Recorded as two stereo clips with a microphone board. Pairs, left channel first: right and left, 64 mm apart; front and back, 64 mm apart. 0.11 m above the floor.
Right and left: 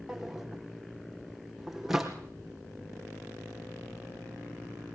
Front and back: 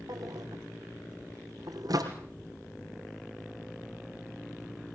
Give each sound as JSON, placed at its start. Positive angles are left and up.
{"t": 0.1, "sound": "a drawer", "azimuth_deg": 175, "distance_m": 3.5}